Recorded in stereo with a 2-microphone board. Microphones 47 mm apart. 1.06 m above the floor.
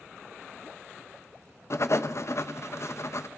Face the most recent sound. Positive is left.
turn(degrees=60)  # may be behind; listen again after turning